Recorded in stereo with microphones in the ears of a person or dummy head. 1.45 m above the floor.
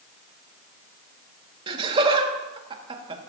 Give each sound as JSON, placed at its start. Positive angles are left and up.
{"t": 1.7, "sound": "laughter", "side_deg": -30, "distance_m": 2.0}